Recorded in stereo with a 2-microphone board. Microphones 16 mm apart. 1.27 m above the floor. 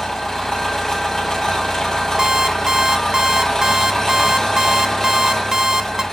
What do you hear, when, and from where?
0.0 s an engine running: 25° left (ahead or behind), 6.5 m
2.2 s an alarm clock: 50° right (ahead or behind), 0.6 m